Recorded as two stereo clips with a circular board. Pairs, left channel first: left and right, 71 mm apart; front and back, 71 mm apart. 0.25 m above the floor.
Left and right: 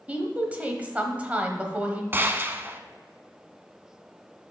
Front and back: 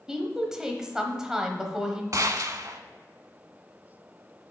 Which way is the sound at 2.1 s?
150° right.